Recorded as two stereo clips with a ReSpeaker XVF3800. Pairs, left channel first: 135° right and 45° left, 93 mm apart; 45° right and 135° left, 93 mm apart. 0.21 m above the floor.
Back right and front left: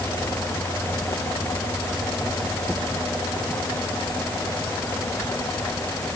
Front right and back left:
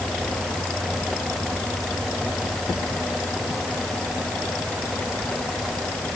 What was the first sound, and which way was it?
Only background noise.